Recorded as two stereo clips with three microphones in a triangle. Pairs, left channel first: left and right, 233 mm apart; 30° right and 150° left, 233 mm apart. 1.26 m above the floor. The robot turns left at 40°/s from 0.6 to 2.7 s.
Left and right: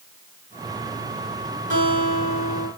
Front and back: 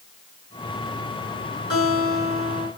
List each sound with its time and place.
1.7 s a guitar: 35° right, 5.5 m; by 2.7 s 70° right, 5.5 m